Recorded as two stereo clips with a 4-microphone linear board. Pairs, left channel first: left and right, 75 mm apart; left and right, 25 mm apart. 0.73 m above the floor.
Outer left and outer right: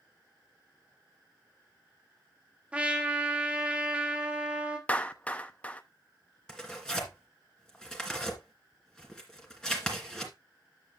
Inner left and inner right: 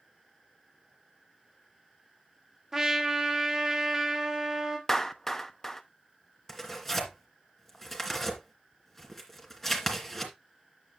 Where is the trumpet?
15° right (ahead or behind), 1.6 m.